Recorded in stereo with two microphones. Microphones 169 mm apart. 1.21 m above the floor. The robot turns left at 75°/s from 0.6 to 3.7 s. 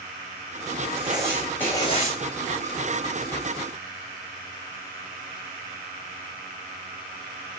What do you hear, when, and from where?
1.0 s writing: 140° right, 7 m; by 2.2 s 125° left, 7 m